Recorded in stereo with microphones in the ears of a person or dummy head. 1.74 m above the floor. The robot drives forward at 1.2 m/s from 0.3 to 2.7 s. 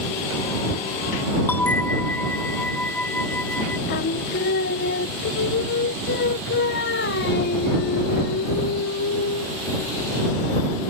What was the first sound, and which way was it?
A bell, 5° left (ahead or behind).